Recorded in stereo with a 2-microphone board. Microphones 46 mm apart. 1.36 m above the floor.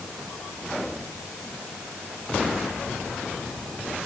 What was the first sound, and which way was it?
Only background noise.